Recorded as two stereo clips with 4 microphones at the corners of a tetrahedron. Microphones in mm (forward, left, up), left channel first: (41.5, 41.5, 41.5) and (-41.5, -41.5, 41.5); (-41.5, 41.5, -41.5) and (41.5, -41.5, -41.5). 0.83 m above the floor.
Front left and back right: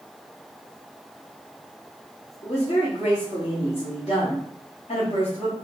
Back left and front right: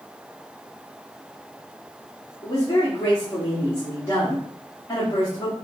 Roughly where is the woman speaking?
Left.